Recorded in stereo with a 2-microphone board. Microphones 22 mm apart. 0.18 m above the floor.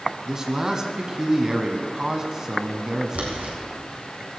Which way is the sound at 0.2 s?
25° right (ahead or behind).